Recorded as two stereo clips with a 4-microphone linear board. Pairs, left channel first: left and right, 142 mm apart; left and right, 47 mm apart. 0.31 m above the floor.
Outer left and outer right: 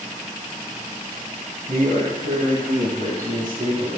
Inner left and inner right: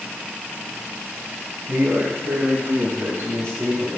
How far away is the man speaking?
About 2.0 m.